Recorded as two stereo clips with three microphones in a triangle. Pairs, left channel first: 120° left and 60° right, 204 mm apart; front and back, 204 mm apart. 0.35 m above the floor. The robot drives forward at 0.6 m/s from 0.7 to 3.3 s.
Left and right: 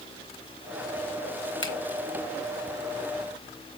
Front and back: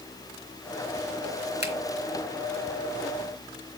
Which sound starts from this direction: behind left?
A finger snap, at 1.6 s.